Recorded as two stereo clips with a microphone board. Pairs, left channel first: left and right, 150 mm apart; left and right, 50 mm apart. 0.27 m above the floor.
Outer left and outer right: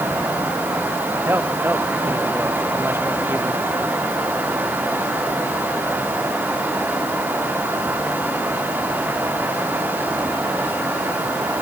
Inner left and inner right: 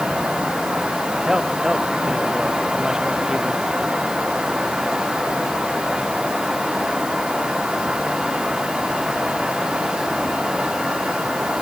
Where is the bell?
I don't hear a bell.